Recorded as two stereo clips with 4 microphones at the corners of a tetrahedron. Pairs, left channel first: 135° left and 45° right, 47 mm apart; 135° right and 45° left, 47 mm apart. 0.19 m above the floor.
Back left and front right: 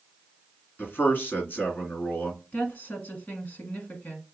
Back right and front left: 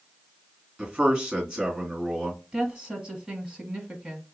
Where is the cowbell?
No cowbell in this recording.